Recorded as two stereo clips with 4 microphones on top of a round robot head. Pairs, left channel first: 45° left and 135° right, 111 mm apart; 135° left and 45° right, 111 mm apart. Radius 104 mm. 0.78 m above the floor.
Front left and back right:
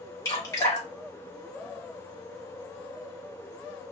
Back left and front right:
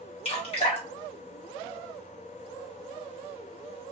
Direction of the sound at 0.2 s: 105° left.